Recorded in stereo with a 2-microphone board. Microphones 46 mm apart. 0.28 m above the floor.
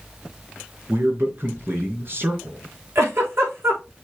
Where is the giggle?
60° right (ahead or behind), 5.5 m.